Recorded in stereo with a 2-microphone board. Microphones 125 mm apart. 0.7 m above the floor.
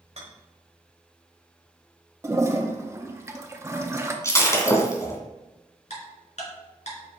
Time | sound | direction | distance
0.2 | a rattle | 55° right (ahead or behind) | 1.6 m
2.2 | a toilet flushing | 20° right (ahead or behind) | 0.8 m
4.2 | breaking glass | 25° left (ahead or behind) | 1.6 m
5.9 | ticking | 65° left (ahead or behind) | 3 m